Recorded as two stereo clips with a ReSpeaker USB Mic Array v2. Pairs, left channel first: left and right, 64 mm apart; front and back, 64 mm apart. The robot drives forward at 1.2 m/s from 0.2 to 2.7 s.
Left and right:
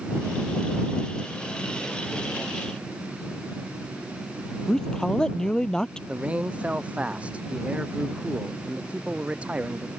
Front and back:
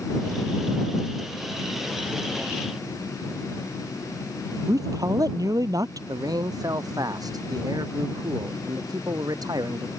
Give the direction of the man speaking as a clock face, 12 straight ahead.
5 o'clock.